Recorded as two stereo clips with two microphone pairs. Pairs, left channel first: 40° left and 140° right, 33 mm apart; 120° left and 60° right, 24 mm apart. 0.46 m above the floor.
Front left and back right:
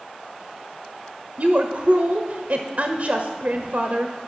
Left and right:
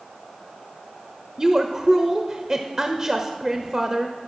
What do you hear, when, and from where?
1.4 s a woman speaking: 125° right, 1.2 m